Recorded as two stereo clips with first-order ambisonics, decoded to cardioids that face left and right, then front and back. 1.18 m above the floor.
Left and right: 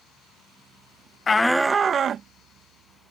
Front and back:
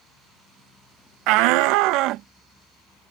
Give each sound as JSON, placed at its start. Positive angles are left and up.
{"t": 1.3, "sound": "a shout", "azimuth_deg": 160}